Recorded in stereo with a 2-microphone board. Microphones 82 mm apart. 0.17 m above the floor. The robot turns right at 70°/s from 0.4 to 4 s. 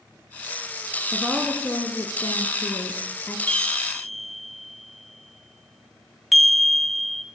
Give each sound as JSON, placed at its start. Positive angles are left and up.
{"t": 1.1, "sound": "a woman speaking", "azimuth_deg": -15, "distance_m": 2.0}
{"t": 3.5, "sound": "a chime", "side_deg": 10, "distance_m": 1.4}